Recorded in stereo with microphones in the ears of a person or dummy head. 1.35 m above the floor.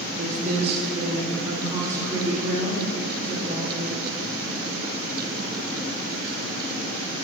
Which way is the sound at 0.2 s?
45° right (ahead or behind).